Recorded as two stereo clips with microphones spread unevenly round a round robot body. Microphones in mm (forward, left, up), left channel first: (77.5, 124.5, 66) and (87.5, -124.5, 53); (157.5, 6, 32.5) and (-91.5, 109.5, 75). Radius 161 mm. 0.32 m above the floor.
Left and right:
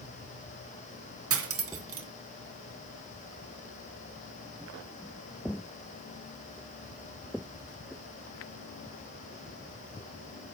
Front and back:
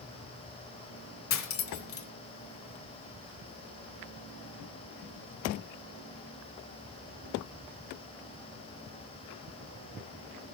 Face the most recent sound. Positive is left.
turn(degrees=-60)